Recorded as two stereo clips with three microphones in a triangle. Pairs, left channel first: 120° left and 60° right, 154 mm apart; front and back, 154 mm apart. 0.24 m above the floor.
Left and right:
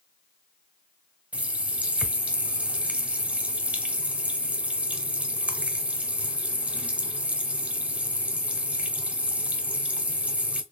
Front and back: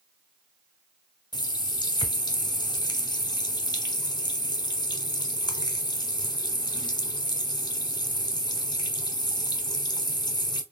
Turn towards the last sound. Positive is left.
turn(degrees=10)